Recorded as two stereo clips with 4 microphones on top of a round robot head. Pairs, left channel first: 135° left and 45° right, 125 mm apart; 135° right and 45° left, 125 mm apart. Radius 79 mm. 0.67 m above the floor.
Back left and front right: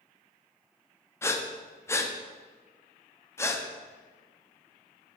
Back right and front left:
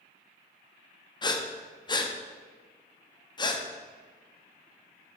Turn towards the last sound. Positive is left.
turn(degrees=-170)